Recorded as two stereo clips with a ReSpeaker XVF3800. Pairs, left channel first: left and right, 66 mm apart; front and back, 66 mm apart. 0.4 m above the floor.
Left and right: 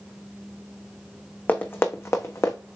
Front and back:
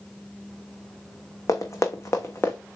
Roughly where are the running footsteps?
Ahead left.